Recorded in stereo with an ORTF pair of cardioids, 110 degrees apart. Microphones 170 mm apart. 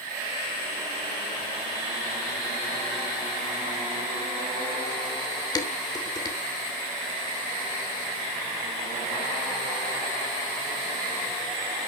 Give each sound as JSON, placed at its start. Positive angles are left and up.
{"t": 5.5, "sound": "dishes clattering", "azimuth_deg": 25, "distance_m": 2.5}